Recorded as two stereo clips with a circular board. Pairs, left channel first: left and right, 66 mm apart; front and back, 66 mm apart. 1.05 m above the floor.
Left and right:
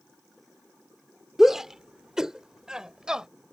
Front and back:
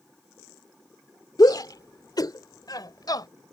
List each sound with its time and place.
1.4 s a shout: 5° right; by 3.3 s 10° right